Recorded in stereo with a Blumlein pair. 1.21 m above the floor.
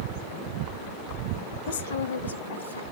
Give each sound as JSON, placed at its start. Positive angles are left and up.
{"t": 1.7, "sound": "a woman speaking", "azimuth_deg": 60, "distance_m": 0.6}